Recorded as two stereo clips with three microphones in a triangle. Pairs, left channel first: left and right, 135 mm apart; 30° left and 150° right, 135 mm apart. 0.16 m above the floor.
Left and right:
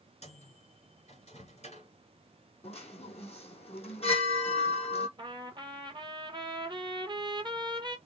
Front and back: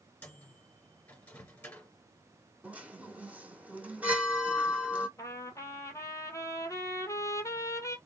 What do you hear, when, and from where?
0.2 s a microwave: 100° left, 2 m
2.6 s a chime: 130° left, 1.7 m
5.2 s a trumpet: 40° right, 0.9 m